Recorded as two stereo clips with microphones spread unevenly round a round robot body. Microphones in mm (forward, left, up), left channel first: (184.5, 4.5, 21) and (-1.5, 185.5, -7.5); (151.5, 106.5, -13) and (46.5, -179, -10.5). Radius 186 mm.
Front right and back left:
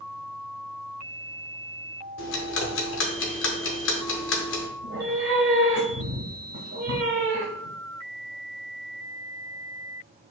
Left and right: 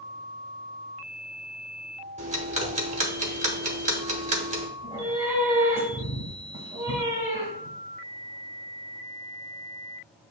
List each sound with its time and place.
2.2 s ticking: 55° right, 0.8 m
4.8 s a cat meowing: 175° left, 0.9 m